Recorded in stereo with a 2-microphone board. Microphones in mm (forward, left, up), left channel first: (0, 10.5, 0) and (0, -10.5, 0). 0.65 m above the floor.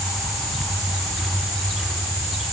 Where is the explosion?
I don't hear an explosion.